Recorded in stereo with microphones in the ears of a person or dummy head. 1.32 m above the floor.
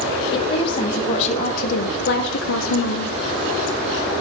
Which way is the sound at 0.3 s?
30° left (ahead or behind).